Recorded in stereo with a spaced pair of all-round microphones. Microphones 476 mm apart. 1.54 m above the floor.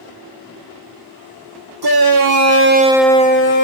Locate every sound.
1.8 s a shout: 50° right (ahead or behind), 1.2 m; by 3.6 s 45° left (ahead or behind), 0.7 m